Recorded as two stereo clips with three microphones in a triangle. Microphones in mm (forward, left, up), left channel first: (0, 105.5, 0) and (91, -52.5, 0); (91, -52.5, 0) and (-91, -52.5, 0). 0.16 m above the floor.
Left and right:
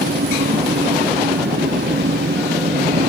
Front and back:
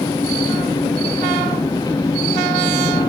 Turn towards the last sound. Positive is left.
turn(degrees=-70)